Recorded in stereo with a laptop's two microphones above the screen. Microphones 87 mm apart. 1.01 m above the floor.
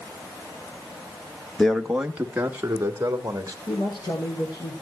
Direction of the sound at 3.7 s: 70° left (ahead or behind).